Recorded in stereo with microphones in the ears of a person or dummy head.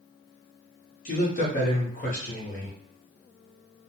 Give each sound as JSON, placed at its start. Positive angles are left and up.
{"t": 1.1, "sound": "a man speaking", "side_deg": 40, "distance_m": 0.7}